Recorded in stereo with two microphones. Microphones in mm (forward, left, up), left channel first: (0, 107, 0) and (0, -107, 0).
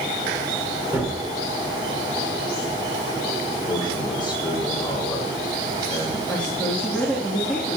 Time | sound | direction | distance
0.9 | a gunshot | 10° right (ahead or behind) | 6 m
3.6 | a man speaking | 20° left (ahead or behind) | 5.5 m
6.3 | a woman speaking | 5° left (ahead or behind) | 3 m